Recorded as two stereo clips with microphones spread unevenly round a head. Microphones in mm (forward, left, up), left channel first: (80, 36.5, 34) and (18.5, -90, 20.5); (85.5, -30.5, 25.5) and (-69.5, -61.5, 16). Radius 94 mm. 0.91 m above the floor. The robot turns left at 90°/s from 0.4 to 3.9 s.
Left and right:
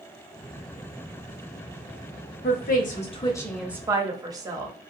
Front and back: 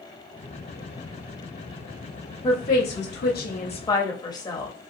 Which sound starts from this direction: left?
A woman speaking, at 2.4 s.